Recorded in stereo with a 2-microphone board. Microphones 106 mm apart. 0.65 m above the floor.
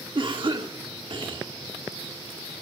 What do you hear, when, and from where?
0.1 s a cough: 50° right (ahead or behind), 1.8 m